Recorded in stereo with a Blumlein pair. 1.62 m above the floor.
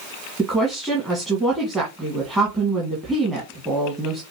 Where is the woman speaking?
15° right, 1.8 m.